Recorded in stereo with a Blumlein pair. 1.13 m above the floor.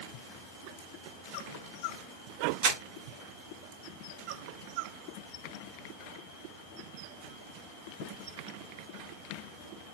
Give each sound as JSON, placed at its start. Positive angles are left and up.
{"t": 2.6, "sound": "crumpling", "azimuth_deg": -50, "distance_m": 1.6}